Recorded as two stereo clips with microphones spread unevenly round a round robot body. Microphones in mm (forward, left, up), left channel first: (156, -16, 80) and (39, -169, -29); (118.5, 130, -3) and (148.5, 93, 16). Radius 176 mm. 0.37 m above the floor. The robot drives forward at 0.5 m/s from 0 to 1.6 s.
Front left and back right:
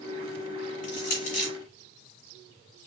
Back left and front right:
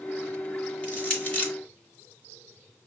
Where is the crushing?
70° left, 3 m; by 1.5 s 75° left, 3 m.